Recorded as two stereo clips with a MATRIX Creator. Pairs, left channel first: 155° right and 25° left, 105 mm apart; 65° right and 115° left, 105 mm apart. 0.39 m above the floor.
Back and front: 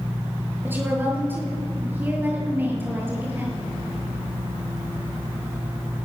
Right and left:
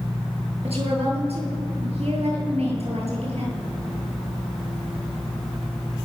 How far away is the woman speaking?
About 8.5 m.